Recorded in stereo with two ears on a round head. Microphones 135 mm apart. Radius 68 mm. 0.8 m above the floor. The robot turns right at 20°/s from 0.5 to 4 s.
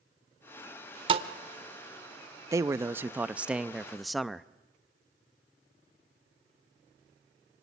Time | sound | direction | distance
1.1 | a thud | 35° right (ahead or behind) | 1.2 m
2.5 | a man speaking | 20° right (ahead or behind) | 0.5 m